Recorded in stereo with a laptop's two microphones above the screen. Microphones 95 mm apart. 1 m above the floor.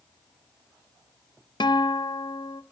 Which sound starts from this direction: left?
A guitar, at 1.6 s.